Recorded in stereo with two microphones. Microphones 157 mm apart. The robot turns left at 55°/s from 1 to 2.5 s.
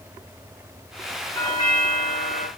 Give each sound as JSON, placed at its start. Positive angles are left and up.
{"t": 1.4, "sound": "a doorbell", "azimuth_deg": 155, "distance_m": 3.5}